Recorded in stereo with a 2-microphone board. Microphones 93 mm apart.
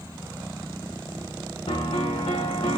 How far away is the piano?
About 1.6 m.